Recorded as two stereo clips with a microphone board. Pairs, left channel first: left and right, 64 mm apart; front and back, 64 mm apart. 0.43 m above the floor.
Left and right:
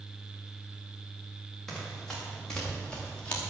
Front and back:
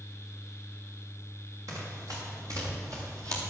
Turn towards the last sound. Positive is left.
turn(degrees=160)